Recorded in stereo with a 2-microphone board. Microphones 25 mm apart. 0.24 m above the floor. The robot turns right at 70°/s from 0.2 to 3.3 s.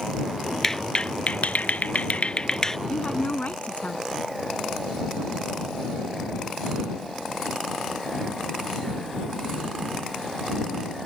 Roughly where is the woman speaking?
Left.